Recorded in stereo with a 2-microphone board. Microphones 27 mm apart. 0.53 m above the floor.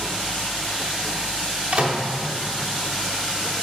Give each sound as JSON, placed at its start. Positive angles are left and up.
{"t": 1.7, "sound": "a microwave", "side_deg": -40, "distance_m": 1.0}